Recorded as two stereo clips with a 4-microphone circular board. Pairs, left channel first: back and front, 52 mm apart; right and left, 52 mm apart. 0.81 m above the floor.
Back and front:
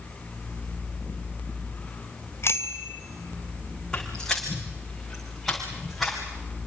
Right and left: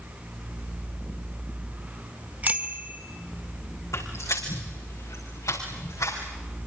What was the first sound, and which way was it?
A bicycle bell, 145° left.